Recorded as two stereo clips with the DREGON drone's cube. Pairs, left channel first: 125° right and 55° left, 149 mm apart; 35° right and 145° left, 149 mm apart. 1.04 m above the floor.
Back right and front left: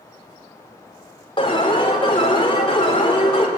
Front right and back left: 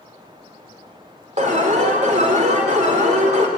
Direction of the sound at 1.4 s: Straight behind.